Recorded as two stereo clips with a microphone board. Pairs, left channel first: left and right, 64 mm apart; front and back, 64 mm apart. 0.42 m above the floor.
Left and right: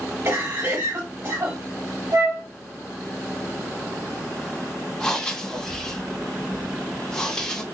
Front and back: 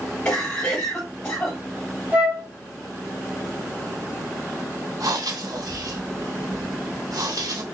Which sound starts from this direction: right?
A cough, at 0.2 s.